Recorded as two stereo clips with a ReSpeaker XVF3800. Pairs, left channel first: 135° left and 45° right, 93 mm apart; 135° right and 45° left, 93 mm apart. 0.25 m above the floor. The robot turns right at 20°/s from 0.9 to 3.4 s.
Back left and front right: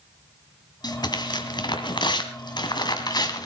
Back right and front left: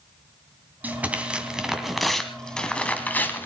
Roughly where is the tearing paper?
Left.